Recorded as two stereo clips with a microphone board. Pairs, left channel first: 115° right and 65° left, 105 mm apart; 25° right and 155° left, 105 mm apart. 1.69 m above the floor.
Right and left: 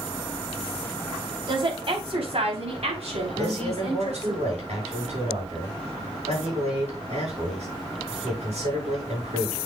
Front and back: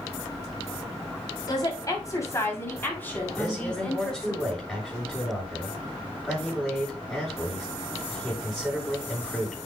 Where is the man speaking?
60° left, 7 m.